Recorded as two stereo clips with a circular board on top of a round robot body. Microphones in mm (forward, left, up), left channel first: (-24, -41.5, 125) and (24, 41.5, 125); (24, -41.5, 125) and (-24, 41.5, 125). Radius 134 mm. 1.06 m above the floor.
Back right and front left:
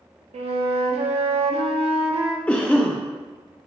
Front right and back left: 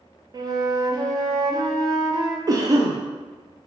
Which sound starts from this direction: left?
A flute, at 0.3 s.